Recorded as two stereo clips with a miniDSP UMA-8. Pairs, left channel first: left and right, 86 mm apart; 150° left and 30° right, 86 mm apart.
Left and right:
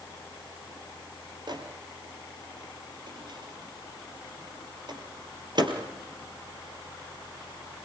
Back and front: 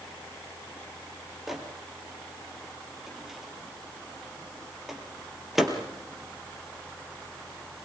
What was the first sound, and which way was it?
A microwave, 115° right.